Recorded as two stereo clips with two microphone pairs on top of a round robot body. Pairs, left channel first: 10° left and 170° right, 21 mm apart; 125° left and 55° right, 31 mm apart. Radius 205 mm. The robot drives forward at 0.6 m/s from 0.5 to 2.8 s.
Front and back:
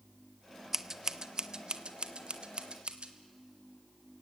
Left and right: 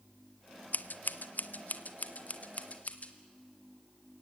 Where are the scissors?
120° left, 0.9 m; by 3.1 s 155° left, 1.8 m.